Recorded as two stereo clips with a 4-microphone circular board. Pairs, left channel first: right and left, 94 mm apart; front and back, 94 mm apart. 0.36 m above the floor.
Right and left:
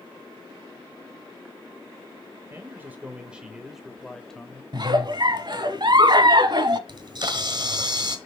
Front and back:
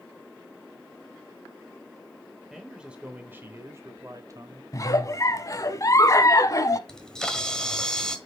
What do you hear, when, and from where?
2.5 s a man speaking: 95° left, 1.2 m; by 4.6 s 165° right, 1.4 m
4.7 s a giggle: 55° left, 0.8 m
6.9 s a camera shutter: 80° left, 1.3 m